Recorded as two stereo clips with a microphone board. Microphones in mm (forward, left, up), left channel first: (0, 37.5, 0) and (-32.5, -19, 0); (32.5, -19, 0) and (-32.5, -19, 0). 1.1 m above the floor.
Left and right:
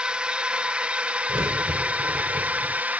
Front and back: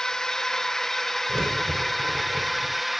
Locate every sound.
0.0 s a drone: 70° right; by 3.0 s 95° right
1.3 s a crack: 130° right